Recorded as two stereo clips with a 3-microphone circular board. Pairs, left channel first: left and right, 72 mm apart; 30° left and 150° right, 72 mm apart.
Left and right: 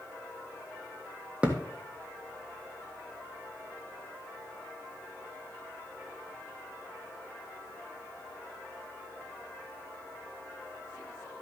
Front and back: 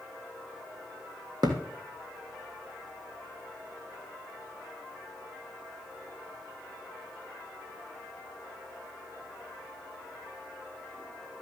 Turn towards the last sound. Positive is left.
turn(degrees=-165)